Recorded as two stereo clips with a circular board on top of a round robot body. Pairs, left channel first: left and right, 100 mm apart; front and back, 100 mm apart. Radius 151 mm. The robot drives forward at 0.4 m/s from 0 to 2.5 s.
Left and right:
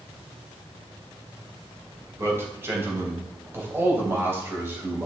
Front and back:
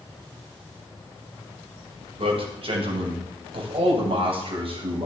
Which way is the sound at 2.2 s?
155° right.